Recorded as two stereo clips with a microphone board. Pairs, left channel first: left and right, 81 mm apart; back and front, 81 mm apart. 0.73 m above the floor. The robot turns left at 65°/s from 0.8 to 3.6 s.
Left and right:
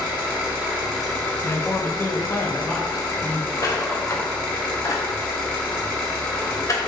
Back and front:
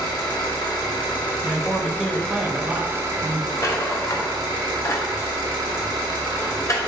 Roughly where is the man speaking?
Left.